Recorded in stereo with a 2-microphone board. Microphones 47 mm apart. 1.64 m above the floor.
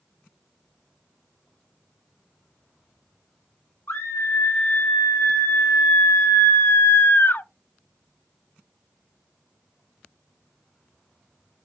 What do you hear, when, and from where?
3.9 s a scream: 70° left (ahead or behind), 2.5 m; by 7.5 s 45° left (ahead or behind), 0.5 m